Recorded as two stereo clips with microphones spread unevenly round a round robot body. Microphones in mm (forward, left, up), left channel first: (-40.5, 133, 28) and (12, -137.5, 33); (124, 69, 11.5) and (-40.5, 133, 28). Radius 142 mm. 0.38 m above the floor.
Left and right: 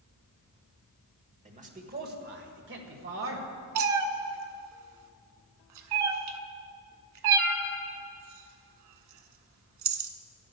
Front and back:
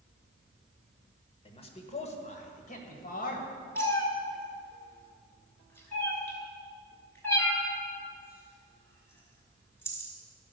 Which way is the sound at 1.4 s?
30° right.